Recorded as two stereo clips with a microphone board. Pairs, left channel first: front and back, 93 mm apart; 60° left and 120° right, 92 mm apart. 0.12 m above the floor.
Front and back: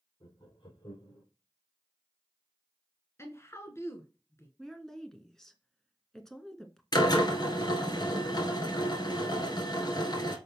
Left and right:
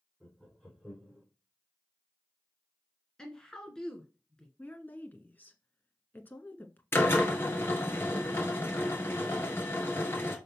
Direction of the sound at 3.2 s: 15° right.